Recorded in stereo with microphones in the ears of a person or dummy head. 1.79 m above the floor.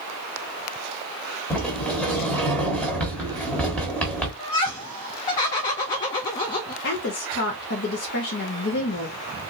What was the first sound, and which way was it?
A sliding door, 5° left (ahead or behind).